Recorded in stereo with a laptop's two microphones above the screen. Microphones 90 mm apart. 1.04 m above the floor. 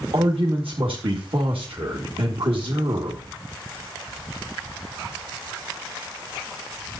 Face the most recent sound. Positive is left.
turn(degrees=-75)  # may be behind; listen again after turning